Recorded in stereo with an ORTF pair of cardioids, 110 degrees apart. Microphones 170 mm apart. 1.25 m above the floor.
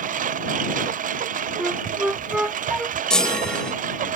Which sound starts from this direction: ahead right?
A lawn mower, at 0.0 s.